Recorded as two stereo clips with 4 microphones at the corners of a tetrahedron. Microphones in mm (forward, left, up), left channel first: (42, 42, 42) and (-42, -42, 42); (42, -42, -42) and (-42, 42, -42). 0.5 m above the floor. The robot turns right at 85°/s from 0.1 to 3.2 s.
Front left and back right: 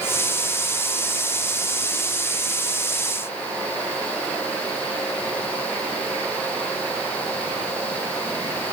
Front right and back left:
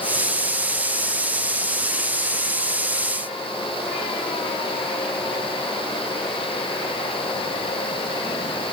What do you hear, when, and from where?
Only background noise.